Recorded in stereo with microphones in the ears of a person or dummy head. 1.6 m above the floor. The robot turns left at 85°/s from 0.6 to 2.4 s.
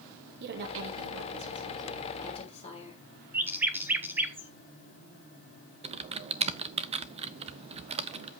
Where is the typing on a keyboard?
30° right (ahead or behind), 0.6 m.